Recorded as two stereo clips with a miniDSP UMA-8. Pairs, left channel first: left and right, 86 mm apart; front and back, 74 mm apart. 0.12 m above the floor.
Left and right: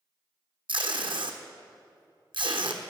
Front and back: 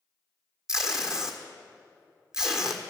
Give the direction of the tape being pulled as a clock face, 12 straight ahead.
3 o'clock.